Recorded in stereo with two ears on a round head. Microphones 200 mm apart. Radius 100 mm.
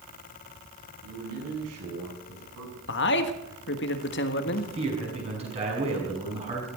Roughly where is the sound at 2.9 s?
Left.